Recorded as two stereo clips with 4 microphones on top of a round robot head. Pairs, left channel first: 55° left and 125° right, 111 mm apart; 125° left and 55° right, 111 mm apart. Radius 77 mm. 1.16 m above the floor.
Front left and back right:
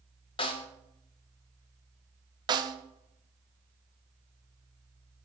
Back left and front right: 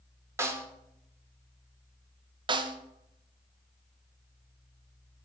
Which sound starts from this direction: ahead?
A snare drum, at 0.4 s.